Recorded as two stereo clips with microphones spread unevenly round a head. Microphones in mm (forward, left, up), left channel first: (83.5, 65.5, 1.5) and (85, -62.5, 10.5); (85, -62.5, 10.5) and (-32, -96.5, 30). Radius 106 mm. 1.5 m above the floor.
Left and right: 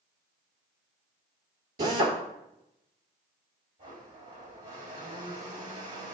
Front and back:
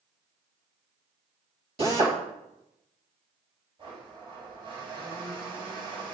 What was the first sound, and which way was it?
A drill, 125° right.